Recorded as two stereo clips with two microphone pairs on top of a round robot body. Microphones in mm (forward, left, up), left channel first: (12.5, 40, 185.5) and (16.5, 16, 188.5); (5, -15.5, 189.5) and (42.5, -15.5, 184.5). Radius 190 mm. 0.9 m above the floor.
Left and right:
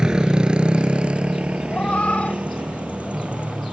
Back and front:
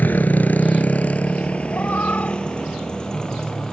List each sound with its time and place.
0.0 s a motorcycle: 140° right; by 3.7 s 105° right
1.7 s a cat meowing: 130° left